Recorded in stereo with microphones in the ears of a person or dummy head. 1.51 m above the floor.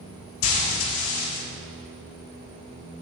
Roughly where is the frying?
Left.